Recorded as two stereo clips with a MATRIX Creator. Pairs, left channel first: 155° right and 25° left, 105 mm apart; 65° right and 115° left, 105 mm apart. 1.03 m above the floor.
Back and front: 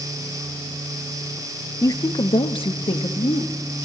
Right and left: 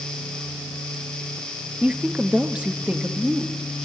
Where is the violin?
I don't hear a violin.